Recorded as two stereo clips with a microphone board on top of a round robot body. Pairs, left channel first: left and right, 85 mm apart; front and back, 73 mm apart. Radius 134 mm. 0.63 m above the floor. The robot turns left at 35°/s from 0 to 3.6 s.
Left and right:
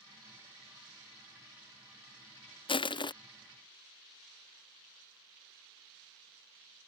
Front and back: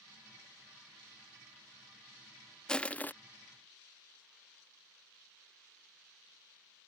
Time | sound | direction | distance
2.7 | crushing | 80° left | ?